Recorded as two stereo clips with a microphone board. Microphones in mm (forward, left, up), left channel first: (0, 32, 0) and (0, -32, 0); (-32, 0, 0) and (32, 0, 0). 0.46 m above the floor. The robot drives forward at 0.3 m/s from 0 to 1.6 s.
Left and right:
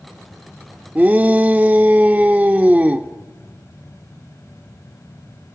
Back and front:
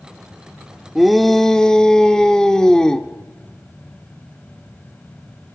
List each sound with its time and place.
0.9 s a shout: 85° right, 0.8 m; by 3.1 s 115° right, 0.8 m